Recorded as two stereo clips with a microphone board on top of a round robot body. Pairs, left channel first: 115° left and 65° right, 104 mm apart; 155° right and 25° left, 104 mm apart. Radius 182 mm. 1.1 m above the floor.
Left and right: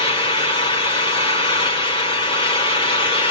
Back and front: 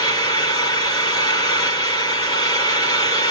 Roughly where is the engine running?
Behind left.